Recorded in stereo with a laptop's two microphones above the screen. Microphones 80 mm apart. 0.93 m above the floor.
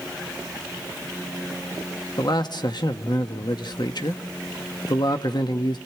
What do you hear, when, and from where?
2.2 s a man speaking: 60° left (ahead or behind), 1.2 m